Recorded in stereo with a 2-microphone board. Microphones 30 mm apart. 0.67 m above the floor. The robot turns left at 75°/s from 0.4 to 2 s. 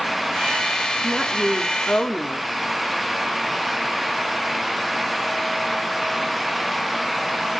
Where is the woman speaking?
Straight behind, 1.6 m; by 2.5 s 105° left, 1.6 m.